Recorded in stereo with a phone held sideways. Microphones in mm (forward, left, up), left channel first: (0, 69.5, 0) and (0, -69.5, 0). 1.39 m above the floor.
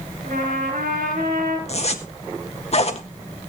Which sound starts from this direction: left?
A zipper, at 1.7 s.